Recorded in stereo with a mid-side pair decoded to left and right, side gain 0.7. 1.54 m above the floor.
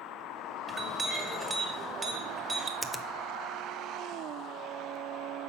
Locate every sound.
0.7 s a clink: 25° right, 1.7 m
2.8 s a finger snap: 5° right, 0.7 m